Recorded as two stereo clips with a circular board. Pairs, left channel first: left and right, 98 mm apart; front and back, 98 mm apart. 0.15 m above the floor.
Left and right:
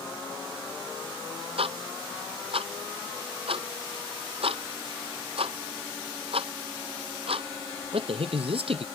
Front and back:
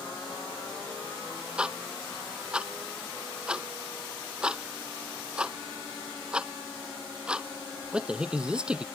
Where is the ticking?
100° right.